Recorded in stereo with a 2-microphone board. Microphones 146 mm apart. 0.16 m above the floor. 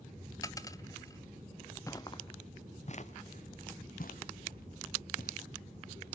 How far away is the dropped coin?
About 0.6 m.